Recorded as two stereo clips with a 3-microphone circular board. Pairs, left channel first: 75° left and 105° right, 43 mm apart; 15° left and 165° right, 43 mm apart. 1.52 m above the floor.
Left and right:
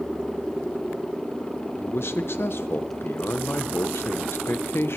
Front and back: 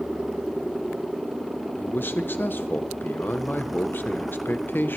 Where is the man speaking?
50° left, 0.9 m.